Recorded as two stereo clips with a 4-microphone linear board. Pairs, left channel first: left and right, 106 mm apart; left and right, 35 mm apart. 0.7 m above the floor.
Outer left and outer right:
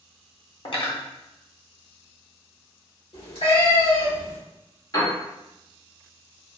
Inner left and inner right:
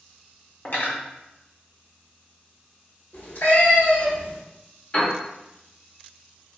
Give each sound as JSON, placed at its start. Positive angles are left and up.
{"t": 0.7, "sound": "cutlery clinking", "side_deg": 55, "distance_m": 0.8}
{"t": 3.1, "sound": "a cat meowing", "side_deg": 75, "distance_m": 2.0}
{"t": 4.9, "sound": "a piano", "side_deg": 40, "distance_m": 1.5}